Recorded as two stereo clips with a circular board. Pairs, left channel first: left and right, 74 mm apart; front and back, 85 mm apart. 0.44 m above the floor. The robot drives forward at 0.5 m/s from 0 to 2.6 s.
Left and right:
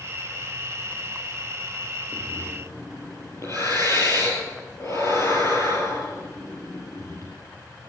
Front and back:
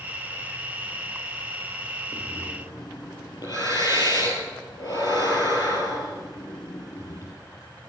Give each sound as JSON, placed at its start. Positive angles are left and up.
{"t": 2.1, "sound": "breathing", "azimuth_deg": 45, "distance_m": 5.0}